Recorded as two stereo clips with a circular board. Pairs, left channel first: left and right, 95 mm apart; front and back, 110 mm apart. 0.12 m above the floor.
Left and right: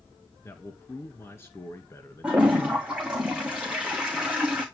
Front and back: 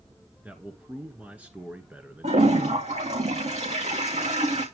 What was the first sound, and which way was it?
A man speaking, 115° left.